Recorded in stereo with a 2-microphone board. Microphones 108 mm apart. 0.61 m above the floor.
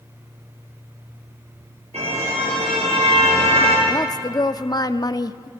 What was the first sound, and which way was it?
A car horn, 80° right.